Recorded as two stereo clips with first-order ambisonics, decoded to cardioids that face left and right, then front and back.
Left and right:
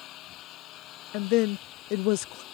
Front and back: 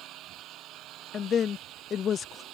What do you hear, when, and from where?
0.0 s an engine running: 135° left
1.1 s a woman speaking: 65° left